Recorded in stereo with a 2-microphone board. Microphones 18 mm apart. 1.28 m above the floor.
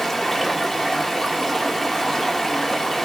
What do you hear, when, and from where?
0.0 s running water: 20° left (ahead or behind), 0.9 m